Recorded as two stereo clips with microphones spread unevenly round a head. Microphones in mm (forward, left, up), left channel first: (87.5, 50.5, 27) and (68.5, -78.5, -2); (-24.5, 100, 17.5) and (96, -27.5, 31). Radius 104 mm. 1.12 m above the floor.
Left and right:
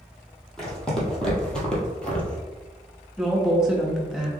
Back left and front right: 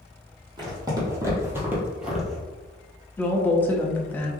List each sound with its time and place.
0.6 s footsteps: 5° left, 1.8 m; by 2.4 s 45° left, 1.2 m
3.2 s a woman speaking: 160° right, 0.7 m